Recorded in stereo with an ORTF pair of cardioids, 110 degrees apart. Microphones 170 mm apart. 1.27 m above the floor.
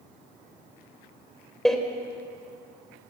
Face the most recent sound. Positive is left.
turn(degrees=5)